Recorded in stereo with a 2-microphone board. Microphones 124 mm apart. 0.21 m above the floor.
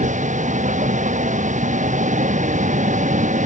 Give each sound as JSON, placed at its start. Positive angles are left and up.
{"t": 0.0, "sound": "a vehicle", "side_deg": -85}